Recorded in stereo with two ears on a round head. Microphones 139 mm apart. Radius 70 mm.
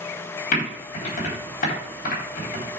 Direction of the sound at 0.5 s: 60° left (ahead or behind).